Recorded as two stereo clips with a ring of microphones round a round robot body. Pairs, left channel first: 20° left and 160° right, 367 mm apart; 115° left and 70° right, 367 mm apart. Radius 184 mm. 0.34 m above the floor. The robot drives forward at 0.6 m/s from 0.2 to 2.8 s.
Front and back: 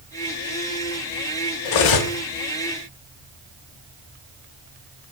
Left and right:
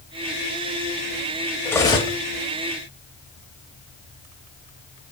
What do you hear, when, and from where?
1.6 s cutlery clinking: 30° left, 0.8 m; by 2.2 s 50° left, 0.6 m